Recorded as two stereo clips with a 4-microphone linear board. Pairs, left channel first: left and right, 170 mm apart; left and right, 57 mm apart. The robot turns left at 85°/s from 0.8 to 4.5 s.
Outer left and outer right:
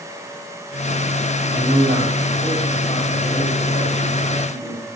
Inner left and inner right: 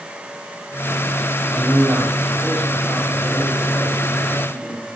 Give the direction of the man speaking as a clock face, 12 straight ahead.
3 o'clock.